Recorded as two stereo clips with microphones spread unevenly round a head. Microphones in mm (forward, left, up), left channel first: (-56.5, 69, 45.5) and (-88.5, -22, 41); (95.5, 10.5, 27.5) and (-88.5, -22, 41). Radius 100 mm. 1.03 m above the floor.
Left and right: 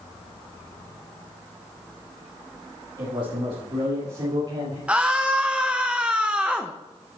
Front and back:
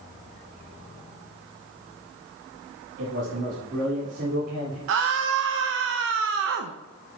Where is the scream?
175° left, 0.7 m.